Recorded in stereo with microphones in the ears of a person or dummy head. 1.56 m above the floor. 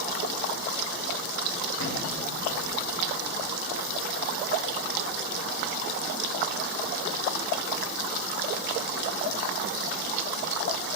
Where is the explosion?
85° left, 1.3 m.